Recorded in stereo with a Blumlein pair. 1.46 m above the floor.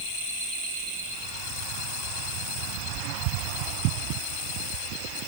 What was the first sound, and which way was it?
Only background noise.